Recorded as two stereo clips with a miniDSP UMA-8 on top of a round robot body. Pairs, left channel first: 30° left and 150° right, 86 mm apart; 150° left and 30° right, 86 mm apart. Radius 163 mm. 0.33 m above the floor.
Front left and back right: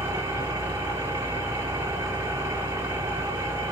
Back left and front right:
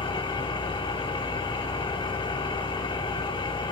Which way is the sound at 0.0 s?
150° left.